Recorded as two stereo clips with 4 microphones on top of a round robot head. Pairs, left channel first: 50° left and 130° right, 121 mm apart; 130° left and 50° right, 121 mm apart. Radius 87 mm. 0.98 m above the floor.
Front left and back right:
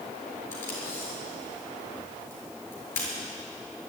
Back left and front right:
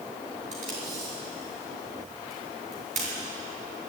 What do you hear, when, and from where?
0.5 s tape being pulled: 20° right, 6 m